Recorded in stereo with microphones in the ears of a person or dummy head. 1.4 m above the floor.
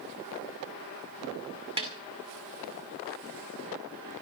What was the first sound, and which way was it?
A snare drum, 25° right (ahead or behind).